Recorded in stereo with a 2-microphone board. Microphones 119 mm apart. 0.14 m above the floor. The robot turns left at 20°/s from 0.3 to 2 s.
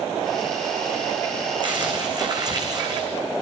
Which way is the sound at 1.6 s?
40° right (ahead or behind).